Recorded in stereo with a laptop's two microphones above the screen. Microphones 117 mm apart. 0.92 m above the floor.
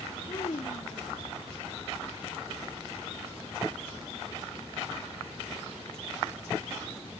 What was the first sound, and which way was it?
A child speaking, 55° left (ahead or behind).